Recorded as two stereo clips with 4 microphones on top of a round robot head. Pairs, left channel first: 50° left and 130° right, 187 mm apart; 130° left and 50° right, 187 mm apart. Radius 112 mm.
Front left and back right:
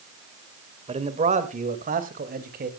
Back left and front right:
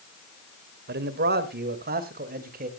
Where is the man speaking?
75° right, 1.9 m; by 2.7 s 90° right, 3 m.